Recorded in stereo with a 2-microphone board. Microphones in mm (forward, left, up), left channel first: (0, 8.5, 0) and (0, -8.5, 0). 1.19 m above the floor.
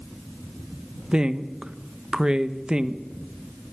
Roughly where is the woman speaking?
Right.